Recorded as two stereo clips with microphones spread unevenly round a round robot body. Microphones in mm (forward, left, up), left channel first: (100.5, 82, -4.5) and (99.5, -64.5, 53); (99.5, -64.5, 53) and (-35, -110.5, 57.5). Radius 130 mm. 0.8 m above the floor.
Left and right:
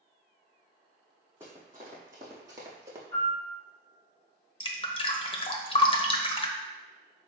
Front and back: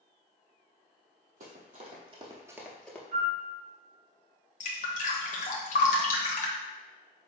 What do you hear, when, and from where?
1.4 s running footsteps: 155° right, 1.6 m; by 3.0 s 55° right, 1.0 m
3.1 s a piano: 160° right, 2 m
4.6 s dripping: 50° left, 0.8 m